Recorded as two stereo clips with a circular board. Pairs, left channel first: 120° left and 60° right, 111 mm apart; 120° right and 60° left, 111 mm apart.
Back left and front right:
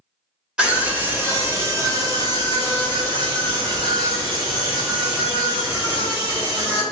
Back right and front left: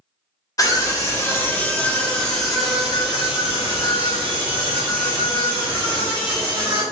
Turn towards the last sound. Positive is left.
turn(degrees=-10)